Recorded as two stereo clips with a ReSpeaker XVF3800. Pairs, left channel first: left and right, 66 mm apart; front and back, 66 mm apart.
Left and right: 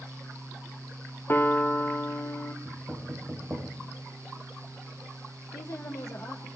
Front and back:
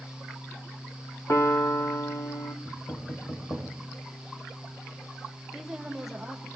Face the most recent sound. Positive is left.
turn(degrees=95)